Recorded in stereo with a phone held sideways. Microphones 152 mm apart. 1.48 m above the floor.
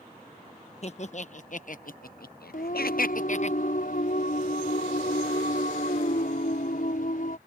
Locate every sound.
0.8 s laughter: 45° left (ahead or behind); by 3.5 s 50° left (ahead or behind)
2.5 s singing: 65° left (ahead or behind)